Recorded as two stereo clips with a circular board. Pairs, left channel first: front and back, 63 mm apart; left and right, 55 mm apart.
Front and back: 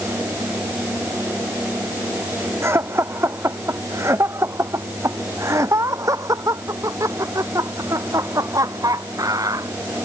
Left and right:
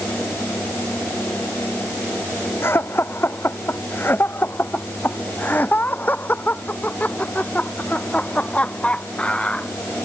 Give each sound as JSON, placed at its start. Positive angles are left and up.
{"t": 2.6, "sound": "laughter", "azimuth_deg": 135}